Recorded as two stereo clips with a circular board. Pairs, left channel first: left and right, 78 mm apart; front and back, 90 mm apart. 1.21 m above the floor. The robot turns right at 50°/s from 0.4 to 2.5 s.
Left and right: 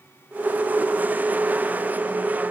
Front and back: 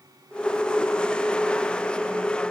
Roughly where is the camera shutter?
No camera shutter in this recording.